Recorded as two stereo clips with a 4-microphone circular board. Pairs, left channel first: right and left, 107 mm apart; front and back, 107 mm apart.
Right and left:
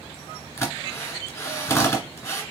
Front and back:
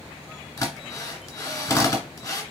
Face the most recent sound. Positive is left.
turn(degrees=-40)